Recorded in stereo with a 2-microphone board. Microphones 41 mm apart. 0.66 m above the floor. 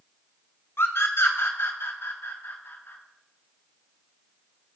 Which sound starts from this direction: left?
A scream, at 0.8 s.